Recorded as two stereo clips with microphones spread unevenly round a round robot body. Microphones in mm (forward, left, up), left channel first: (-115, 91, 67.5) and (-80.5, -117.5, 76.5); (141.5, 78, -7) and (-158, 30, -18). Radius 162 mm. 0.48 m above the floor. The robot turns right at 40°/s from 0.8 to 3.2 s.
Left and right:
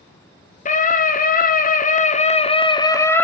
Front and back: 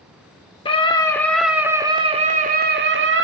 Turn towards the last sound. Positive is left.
turn(degrees=175)